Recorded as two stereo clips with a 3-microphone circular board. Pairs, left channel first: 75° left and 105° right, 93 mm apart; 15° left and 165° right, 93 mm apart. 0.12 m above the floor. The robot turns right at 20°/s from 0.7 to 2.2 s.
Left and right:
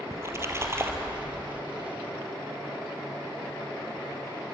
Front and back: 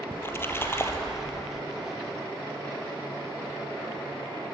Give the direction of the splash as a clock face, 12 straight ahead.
2 o'clock.